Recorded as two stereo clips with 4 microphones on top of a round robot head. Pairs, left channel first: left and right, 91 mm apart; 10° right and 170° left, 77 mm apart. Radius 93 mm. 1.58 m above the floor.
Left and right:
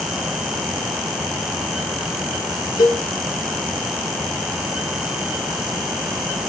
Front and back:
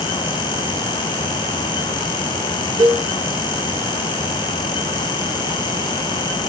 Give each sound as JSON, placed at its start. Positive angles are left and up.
{"t": 2.8, "sound": "a cowbell", "azimuth_deg": 130, "distance_m": 3.0}